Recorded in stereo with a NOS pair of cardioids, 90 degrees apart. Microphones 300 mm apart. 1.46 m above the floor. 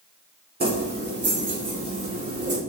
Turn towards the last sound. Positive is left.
turn(degrees=-50)